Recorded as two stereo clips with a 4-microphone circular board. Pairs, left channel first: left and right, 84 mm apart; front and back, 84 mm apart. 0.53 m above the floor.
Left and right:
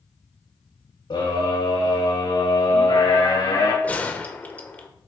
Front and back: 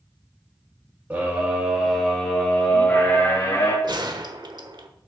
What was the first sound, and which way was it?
A scream, 115° left.